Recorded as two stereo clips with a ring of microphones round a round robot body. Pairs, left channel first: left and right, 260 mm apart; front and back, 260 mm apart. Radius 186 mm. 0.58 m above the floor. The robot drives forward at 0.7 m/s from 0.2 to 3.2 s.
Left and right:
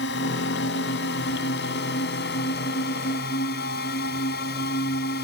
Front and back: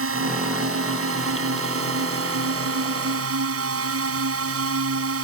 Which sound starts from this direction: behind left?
A drone, at 0.0 s.